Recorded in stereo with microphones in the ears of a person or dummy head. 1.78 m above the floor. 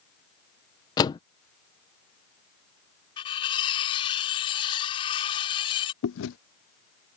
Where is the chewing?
75° left (ahead or behind).